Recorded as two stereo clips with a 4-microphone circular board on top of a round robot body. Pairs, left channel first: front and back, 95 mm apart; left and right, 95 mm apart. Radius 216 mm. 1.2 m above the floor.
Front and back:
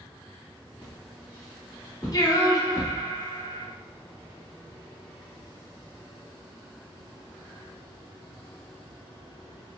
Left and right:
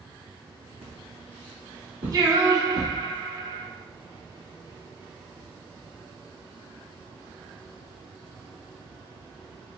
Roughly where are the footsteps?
Right.